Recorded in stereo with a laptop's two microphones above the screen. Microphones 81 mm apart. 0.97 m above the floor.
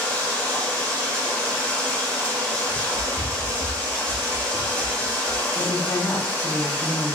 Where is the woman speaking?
25° left (ahead or behind), 0.9 m.